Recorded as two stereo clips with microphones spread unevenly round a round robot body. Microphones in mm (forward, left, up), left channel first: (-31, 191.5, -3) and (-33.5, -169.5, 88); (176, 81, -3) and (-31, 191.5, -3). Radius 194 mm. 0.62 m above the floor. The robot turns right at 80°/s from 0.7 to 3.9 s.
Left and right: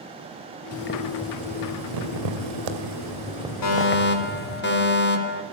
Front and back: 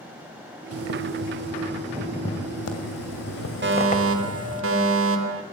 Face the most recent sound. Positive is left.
turn(degrees=140)